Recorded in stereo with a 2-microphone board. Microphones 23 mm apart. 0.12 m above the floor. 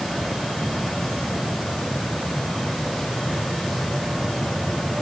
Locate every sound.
Only background noise.